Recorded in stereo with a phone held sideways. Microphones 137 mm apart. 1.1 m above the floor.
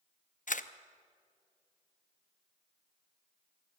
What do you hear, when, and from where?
0.5 s a camera shutter: 65° left (ahead or behind), 0.8 m